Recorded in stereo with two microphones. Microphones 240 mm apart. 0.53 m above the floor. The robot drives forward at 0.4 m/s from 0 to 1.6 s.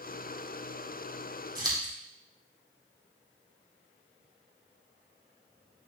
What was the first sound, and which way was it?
Scissors, 20° right (ahead or behind).